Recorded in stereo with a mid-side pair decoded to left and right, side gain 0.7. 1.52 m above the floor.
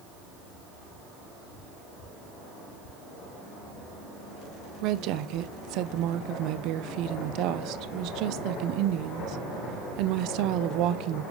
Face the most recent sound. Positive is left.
turn(degrees=-60)